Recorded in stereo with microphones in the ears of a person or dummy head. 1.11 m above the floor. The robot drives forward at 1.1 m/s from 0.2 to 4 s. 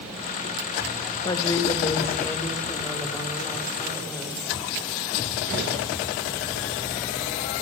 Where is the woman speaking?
30° left (ahead or behind), 1.3 m; by 4.4 s 10° left (ahead or behind), 4 m.